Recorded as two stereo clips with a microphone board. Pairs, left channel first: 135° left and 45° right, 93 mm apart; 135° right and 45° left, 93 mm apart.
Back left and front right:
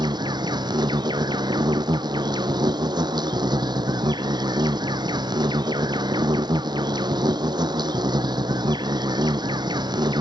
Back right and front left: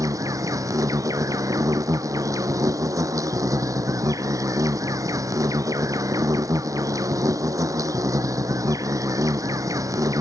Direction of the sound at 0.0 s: 10° right.